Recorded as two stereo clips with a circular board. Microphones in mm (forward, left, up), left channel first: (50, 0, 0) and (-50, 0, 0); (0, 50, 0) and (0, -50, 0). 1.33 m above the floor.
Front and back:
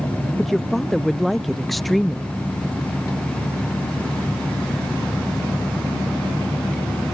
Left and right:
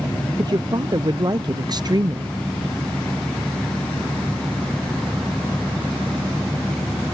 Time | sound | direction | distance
0.4 | a woman speaking | 85° right | ?